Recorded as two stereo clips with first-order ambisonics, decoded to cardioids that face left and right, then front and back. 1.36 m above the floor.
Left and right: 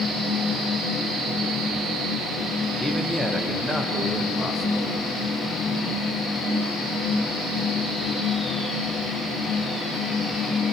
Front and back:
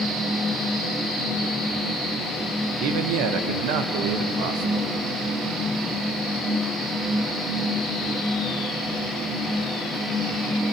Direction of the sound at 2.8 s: Straight behind.